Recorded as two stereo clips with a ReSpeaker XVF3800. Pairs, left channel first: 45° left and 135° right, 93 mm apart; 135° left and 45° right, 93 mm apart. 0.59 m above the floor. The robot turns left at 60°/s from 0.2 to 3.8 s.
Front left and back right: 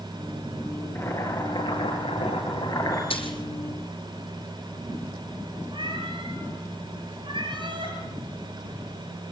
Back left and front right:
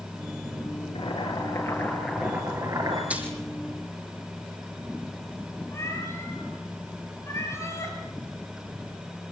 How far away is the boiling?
About 9.5 m.